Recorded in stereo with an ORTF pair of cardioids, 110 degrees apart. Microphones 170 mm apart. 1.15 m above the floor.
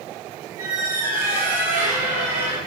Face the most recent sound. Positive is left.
turn(degrees=-55)